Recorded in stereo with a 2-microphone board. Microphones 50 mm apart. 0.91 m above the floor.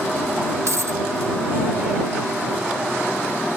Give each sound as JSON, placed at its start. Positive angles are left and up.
{"t": 0.7, "sound": "a dropped coin", "side_deg": -70}